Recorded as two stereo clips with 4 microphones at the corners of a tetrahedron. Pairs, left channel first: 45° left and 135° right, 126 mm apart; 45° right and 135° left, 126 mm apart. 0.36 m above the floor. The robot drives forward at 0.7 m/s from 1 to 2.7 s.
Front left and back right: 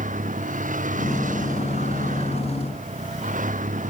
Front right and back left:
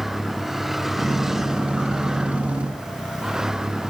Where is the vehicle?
140° right.